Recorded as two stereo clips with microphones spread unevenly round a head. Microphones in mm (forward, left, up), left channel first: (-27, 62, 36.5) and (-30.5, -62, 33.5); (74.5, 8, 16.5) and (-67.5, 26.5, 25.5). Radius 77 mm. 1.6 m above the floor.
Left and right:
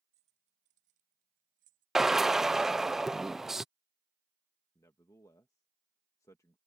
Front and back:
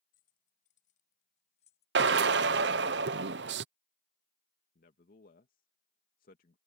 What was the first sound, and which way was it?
Keys jangling, 45° right.